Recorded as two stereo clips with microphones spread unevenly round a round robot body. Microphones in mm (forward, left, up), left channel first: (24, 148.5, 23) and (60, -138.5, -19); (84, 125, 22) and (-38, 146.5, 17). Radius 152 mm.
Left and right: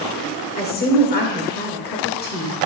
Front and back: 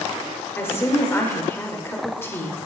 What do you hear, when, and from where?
0.6 s a woman speaking: 50° left, 1.4 m